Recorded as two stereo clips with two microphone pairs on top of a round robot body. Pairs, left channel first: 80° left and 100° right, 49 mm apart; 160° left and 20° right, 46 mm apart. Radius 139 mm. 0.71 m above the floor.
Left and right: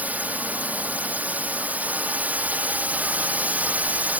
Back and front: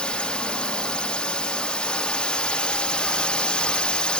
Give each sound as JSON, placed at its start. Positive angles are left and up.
{"t": 0.0, "sound": "a drone", "azimuth_deg": -150}